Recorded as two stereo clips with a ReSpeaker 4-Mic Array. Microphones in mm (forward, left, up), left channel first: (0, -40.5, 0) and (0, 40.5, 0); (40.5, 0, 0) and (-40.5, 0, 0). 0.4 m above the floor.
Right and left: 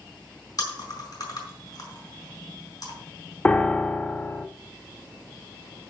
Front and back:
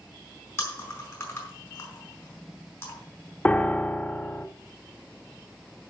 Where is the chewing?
55° right, 4.5 m.